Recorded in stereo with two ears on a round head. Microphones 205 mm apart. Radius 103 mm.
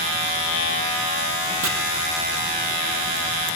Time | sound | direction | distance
1.6 | chopping | 70° right (ahead or behind) | 3.5 m